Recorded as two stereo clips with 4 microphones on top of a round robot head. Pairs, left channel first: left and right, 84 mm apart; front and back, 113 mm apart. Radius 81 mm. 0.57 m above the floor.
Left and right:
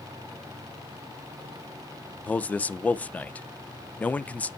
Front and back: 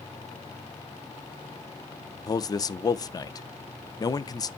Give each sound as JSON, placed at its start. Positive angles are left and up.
{"t": 2.3, "sound": "a man speaking", "azimuth_deg": 30, "distance_m": 0.7}